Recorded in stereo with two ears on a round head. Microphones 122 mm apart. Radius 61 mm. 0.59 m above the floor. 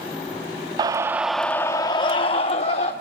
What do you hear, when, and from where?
0.8 s a scream: 30° right (ahead or behind), 0.7 m; by 2.9 s 50° left (ahead or behind), 1.3 m